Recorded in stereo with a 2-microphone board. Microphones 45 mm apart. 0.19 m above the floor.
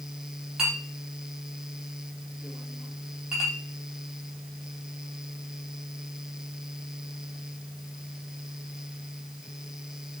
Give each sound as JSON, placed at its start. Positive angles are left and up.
{"t": 0.6, "sound": "a clink", "side_deg": -15, "distance_m": 5.0}